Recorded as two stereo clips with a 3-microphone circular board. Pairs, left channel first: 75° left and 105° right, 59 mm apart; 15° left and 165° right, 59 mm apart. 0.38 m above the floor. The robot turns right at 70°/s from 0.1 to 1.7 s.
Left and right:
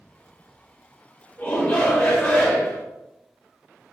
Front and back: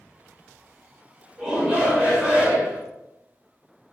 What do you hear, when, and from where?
1.4 s a shout: 120° left, 1.4 m; by 2.8 s 145° left, 1.4 m